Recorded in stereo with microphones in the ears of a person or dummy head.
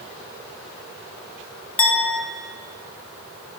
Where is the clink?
5° left (ahead or behind), 0.8 m.